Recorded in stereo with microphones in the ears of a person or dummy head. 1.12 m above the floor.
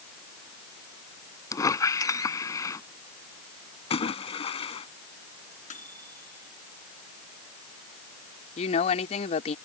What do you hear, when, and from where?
1.5 s a squeak: 20° left (ahead or behind)
3.9 s a splash: 35° left (ahead or behind)
5.7 s a microwave: 45° left (ahead or behind)
8.6 s a woman speaking: 40° left (ahead or behind)